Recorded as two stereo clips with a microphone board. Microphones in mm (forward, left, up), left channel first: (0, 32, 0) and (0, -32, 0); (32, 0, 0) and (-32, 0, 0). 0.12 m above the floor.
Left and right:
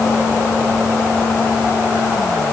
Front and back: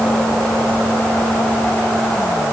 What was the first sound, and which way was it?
Only background noise.